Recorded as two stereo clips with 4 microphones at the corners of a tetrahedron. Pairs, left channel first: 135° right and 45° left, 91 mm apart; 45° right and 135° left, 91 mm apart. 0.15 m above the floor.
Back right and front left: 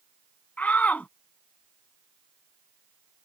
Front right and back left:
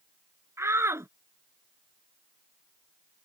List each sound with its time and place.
0.6 s a shout: 165° left